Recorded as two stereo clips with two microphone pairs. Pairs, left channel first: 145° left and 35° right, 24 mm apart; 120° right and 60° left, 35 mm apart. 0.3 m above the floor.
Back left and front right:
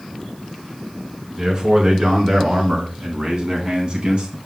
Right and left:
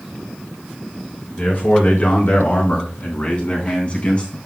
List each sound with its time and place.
1.4 s a man speaking: 85° right, 4.5 m; by 4.4 s 70° right, 3 m